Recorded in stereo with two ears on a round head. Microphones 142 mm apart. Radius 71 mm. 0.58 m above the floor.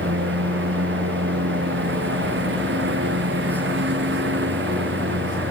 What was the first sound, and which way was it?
A lawn mower, 80° right.